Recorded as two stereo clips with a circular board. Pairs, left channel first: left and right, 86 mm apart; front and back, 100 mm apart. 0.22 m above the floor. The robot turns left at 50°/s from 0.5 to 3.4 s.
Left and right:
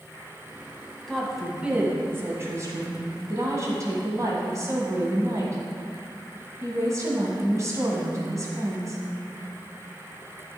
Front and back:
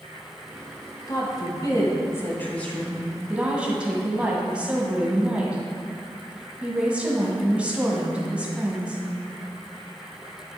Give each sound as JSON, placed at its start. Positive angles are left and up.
{"t": 1.1, "sound": "a woman speaking", "azimuth_deg": 10, "distance_m": 1.5}